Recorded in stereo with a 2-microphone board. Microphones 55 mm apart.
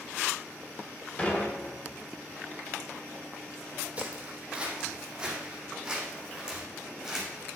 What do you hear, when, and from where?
1.2 s dishes clattering: 25° left (ahead or behind), 2.5 m
4.0 s footsteps: 25° right (ahead or behind), 2 m; by 7.4 s 5° right (ahead or behind), 4 m